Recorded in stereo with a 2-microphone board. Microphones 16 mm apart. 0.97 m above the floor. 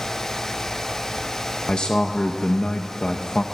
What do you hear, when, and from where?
1.7 s a man speaking: 70° left (ahead or behind), 0.5 m